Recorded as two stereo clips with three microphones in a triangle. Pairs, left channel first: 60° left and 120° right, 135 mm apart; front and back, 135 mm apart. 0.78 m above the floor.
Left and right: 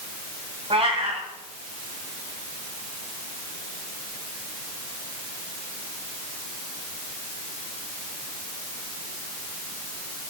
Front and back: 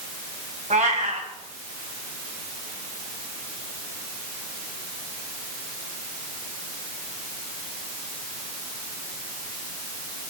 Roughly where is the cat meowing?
Behind.